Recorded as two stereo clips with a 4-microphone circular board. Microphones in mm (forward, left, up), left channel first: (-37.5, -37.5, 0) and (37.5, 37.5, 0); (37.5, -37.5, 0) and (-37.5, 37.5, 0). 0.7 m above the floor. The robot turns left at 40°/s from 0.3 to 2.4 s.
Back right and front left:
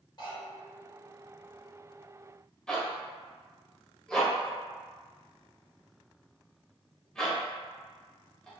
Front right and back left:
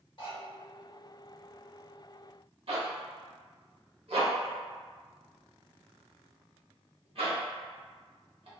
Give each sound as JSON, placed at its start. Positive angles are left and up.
{"t": 0.2, "sound": "cutlery clinking", "azimuth_deg": -90, "distance_m": 1.0}
{"t": 2.7, "sound": "a zipper", "azimuth_deg": 140, "distance_m": 0.7}